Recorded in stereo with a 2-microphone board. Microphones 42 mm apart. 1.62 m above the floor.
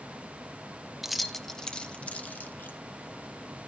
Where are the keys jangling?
5° right (ahead or behind), 0.8 m; by 2.8 s 45° left (ahead or behind), 1.2 m.